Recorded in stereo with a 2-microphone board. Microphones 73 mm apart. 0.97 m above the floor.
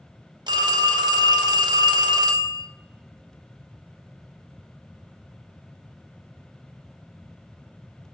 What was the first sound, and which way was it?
A phone ringing, 80° right.